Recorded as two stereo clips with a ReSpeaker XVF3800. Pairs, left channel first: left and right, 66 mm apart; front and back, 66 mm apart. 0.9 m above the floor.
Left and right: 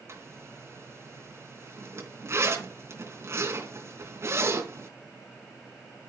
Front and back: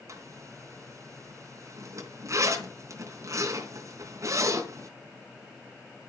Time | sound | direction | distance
0.1 | a zipper | 140° right | 3 m